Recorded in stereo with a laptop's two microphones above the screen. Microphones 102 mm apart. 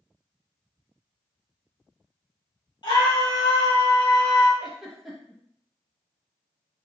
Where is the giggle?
Centre (ahead or behind), 0.8 m.